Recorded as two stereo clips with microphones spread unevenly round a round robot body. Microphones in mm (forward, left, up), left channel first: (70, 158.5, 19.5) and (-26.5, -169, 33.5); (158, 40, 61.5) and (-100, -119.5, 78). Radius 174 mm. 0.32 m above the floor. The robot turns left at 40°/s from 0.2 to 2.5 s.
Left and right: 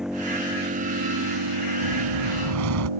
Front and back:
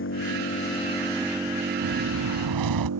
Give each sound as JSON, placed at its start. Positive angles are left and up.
{"t": 0.0, "sound": "an engine running", "azimuth_deg": -20}
{"t": 1.8, "sound": "a whoosh", "azimuth_deg": -120}